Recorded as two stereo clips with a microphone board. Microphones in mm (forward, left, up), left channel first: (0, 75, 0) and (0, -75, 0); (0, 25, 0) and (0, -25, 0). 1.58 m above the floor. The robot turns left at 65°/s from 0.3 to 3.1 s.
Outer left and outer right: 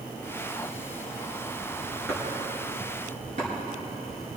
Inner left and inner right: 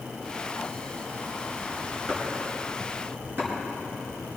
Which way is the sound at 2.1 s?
10° left (ahead or behind).